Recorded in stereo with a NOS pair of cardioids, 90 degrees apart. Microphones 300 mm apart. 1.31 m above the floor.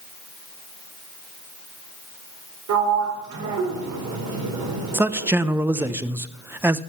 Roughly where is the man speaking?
Ahead.